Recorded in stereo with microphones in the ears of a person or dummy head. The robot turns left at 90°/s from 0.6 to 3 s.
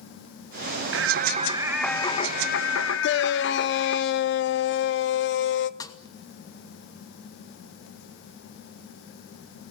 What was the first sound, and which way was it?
Singing, 100° right.